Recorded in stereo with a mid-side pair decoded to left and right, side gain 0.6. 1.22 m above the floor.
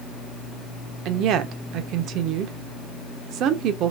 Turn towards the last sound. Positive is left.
turn(degrees=-65)